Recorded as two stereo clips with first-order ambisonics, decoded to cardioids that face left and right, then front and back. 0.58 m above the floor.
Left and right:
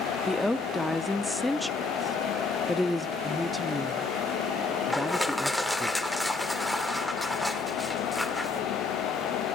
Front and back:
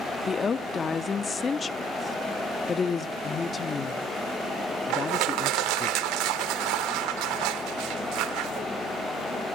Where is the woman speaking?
15° left, 0.6 m.